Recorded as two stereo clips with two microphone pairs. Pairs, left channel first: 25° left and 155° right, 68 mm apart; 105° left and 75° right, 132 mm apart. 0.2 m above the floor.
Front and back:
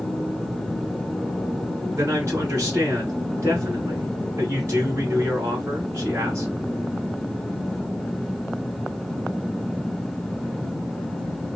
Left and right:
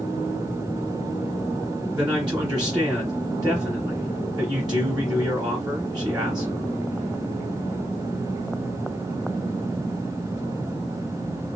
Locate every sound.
1.9 s a man speaking: 120° right, 1.3 m